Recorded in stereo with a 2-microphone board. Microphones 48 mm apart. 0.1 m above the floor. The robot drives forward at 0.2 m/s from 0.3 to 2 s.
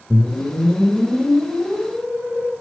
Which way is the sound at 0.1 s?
40° right (ahead or behind).